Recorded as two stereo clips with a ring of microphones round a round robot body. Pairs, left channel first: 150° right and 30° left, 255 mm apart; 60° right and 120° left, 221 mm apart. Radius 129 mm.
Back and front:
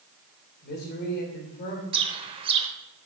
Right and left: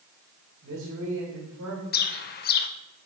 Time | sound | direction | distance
0.6 | a man speaking | 160° left | 2.5 m
1.9 | a bird | 35° right | 0.5 m